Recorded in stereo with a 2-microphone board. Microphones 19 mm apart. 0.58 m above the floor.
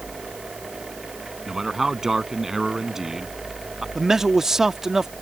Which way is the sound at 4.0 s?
30° right (ahead or behind).